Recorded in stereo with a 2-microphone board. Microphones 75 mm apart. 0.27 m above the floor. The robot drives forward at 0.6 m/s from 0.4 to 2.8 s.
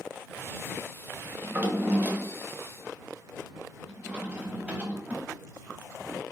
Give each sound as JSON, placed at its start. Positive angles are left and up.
{"t": 1.4, "sound": "a drawer", "side_deg": -20, "distance_m": 0.8}